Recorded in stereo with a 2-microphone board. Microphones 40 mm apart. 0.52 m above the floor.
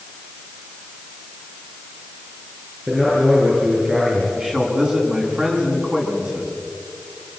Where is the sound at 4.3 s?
20° right (ahead or behind), 5.5 m.